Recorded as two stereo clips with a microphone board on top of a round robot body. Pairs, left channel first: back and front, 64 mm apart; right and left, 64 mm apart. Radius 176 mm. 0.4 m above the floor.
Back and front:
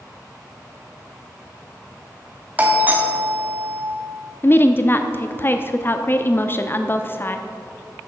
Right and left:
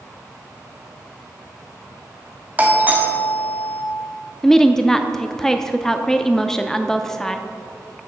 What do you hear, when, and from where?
2.6 s a doorbell: 45° left, 2 m
4.4 s a woman speaking: 165° right, 0.8 m